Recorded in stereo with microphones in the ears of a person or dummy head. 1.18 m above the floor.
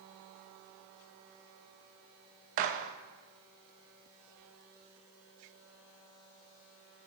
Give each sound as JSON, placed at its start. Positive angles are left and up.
{"t": 2.6, "sound": "a gunshot", "side_deg": -40, "distance_m": 0.5}